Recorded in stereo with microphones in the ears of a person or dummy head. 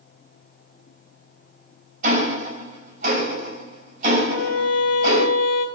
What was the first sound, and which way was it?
Ticking, 45° right (ahead or behind).